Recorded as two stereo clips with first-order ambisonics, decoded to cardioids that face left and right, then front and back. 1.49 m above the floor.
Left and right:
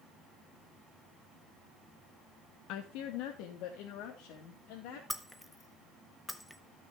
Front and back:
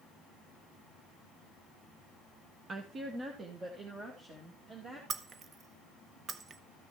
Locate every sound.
2.7 s a woman speaking: 115° left, 0.7 m; by 5.0 s 110° left, 2.5 m
5.1 s breaking glass: 165° left, 0.6 m